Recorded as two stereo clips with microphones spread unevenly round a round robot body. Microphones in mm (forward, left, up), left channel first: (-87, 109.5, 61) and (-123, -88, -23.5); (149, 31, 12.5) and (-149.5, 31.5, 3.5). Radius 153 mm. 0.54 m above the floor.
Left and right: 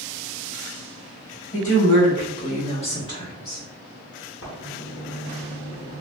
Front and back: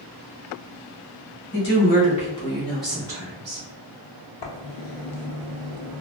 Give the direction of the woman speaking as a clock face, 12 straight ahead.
12 o'clock.